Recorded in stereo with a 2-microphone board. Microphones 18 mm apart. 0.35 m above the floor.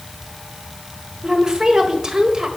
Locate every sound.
1.2 s a woman speaking: 40° right (ahead or behind), 1.3 m